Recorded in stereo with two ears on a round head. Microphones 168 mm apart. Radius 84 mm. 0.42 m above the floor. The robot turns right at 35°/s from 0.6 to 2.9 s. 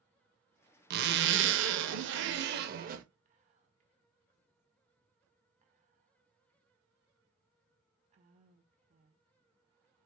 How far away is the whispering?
About 0.9 m.